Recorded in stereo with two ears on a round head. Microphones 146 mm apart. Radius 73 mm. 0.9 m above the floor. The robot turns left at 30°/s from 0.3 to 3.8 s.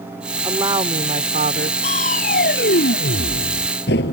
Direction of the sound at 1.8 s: 135° left.